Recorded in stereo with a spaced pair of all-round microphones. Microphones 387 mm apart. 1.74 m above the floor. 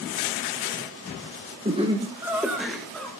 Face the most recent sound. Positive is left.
turn(degrees=5)  # may be behind; listen again after turning